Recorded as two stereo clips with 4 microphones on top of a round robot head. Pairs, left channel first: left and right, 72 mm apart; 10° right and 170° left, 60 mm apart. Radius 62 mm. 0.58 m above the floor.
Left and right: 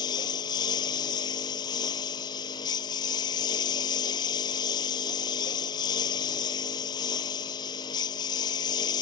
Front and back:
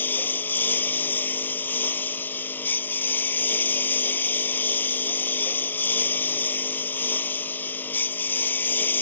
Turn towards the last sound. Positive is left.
turn(degrees=50)